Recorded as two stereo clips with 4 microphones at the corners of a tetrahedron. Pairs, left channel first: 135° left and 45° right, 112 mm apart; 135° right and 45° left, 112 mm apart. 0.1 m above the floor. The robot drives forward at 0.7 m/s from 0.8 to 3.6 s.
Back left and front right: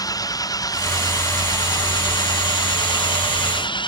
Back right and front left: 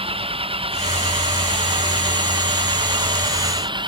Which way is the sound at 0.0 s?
80° left.